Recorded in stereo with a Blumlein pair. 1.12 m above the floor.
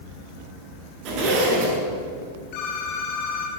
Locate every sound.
1.1 s a zipper: 40° right, 8 m
2.5 s a phone ringing: 45° left, 8 m